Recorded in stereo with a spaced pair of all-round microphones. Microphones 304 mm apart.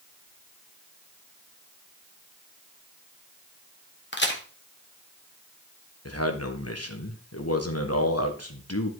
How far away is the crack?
About 1.6 m.